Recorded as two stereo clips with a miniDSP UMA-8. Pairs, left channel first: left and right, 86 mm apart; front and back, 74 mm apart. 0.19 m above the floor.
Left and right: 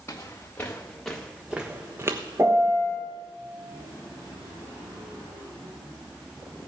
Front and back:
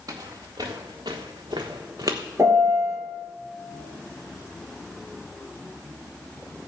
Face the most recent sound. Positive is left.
turn(degrees=-140)